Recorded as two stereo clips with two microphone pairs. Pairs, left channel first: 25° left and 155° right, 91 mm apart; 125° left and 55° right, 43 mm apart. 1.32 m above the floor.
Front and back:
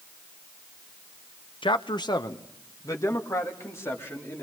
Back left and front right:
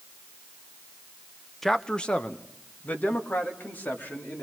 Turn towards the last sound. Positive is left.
turn(degrees=85)